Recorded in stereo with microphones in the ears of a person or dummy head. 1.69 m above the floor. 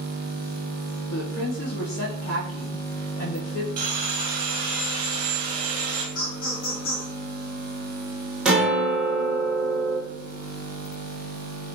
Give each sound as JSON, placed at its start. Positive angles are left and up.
{"t": 1.1, "sound": "a woman speaking", "side_deg": 70, "distance_m": 1.0}
{"t": 3.8, "sound": "sawing", "side_deg": -30, "distance_m": 0.8}
{"t": 6.2, "sound": "laughter", "side_deg": 80, "distance_m": 1.7}
{"t": 8.4, "sound": "a guitar", "side_deg": 0, "distance_m": 1.1}